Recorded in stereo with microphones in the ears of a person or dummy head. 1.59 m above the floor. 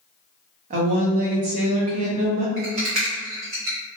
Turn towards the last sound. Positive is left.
turn(degrees=-35)  # may be behind; listen again after turning